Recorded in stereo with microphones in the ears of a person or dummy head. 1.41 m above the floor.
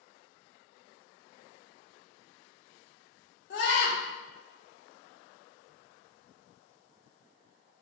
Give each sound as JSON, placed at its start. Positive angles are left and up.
{"t": 3.5, "sound": "a scream", "side_deg": 50, "distance_m": 0.7}